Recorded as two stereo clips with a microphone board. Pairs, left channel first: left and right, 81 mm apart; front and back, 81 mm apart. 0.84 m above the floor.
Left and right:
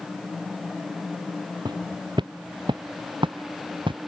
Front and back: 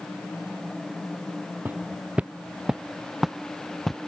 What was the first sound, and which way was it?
Footsteps, 115° right.